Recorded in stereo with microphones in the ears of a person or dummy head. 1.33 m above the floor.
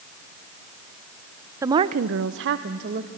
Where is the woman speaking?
15° right (ahead or behind), 0.7 m; by 3.1 s 55° right (ahead or behind), 1.3 m.